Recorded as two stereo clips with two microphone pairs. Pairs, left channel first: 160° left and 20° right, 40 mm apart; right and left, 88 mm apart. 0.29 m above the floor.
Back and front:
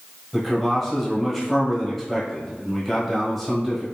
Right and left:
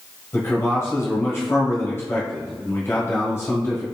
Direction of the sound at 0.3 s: 115° right.